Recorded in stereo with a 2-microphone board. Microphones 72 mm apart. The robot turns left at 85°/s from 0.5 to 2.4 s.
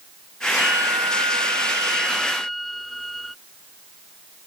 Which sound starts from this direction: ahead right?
A violin, at 0.6 s.